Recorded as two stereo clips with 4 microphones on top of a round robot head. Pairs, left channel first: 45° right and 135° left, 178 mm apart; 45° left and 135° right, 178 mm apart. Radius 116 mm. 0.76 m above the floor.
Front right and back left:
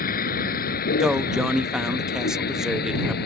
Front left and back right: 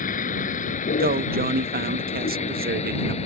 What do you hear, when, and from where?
0.0 s a vehicle: 5° right; by 3.3 s 10° right
1.0 s a man speaking: 140° right